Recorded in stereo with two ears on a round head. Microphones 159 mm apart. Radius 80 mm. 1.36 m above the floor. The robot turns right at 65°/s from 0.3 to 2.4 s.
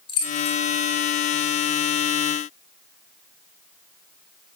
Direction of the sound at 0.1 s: 30° left (ahead or behind).